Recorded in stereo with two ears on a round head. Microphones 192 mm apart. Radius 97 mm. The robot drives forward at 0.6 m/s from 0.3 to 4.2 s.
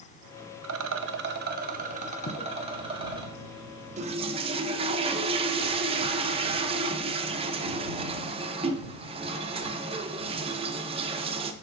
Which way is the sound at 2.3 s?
50° left (ahead or behind).